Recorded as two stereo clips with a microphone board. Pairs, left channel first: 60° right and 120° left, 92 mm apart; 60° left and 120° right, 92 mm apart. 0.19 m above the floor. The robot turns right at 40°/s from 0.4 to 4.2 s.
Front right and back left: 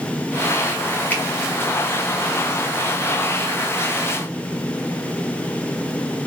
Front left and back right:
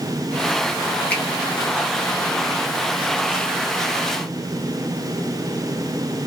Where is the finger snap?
Straight ahead, 1.5 m; by 1.2 s 5° left, 1.5 m.